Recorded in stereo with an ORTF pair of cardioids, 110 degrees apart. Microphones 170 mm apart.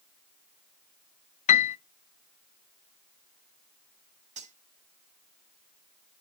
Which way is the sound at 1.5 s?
45° left.